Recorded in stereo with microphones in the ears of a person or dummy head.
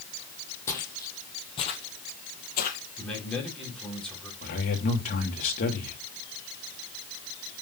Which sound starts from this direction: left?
A man speaking, at 4.4 s.